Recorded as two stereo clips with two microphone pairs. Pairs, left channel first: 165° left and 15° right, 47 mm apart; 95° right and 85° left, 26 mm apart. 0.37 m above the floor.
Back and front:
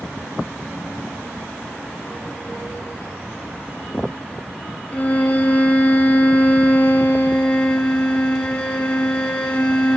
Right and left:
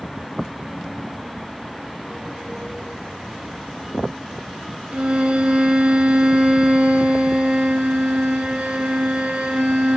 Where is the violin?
100° left, 1.6 m.